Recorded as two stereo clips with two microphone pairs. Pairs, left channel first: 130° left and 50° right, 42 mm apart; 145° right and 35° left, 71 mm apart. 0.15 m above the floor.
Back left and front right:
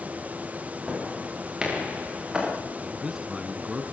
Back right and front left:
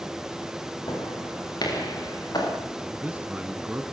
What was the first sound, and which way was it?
Footsteps, 125° right.